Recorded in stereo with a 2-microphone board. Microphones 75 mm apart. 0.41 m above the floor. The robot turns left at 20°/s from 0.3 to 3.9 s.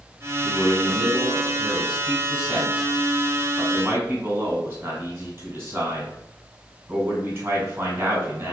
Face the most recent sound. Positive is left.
turn(degrees=-70)